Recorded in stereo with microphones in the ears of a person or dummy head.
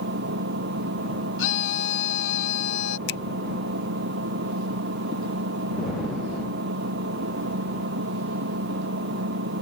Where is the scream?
75° left (ahead or behind).